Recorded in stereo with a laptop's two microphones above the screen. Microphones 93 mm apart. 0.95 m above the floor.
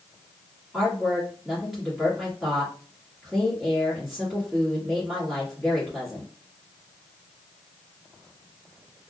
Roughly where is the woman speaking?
Centre.